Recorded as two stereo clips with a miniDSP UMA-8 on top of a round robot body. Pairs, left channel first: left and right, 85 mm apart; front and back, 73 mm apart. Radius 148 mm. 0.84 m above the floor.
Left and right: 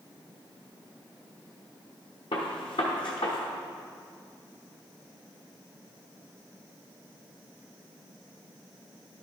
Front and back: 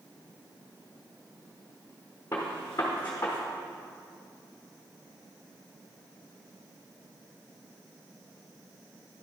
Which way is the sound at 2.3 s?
65° left.